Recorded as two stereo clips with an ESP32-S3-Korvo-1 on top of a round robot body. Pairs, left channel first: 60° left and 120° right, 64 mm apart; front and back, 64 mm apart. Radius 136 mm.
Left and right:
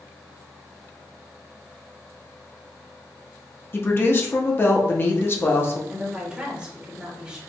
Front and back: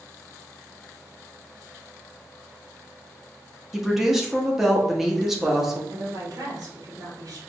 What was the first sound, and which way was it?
A woman speaking, 95° left.